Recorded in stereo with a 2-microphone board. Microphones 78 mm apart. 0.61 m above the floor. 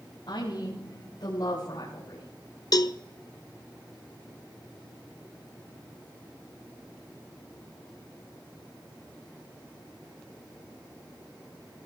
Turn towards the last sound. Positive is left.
turn(degrees=50)  # may be behind; listen again after turning